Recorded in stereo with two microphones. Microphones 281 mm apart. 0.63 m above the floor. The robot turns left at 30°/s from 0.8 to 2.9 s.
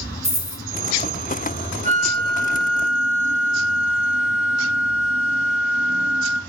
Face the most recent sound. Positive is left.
turn(degrees=-55)